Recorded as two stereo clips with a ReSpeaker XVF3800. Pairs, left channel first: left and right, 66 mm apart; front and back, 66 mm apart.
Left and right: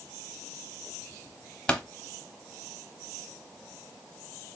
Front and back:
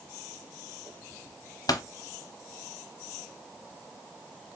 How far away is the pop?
About 0.9 m.